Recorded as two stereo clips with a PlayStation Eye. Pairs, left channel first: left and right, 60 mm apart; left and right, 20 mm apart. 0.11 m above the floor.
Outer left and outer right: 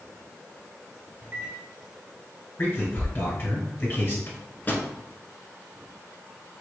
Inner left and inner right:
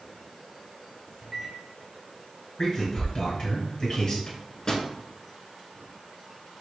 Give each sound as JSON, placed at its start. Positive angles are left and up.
{"t": 1.2, "sound": "a microwave", "side_deg": -35, "distance_m": 1.3}
{"t": 2.6, "sound": "a man speaking", "side_deg": 30, "distance_m": 2.0}
{"t": 4.3, "sound": "a microwave", "side_deg": 30, "distance_m": 0.9}